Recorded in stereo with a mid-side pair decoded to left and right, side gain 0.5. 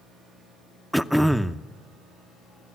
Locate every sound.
0.9 s throat clearing: 5° right, 0.7 m